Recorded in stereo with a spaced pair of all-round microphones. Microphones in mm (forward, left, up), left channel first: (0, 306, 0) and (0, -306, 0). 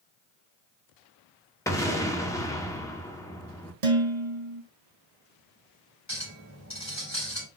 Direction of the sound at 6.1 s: 25° left (ahead or behind).